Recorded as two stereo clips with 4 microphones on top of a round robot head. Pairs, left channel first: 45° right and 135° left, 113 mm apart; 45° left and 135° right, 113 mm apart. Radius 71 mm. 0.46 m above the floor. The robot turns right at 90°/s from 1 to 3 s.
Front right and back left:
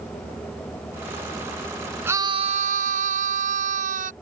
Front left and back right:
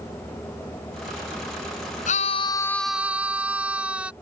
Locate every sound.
2.1 s a scream: 60° left; by 4.1 s 145° left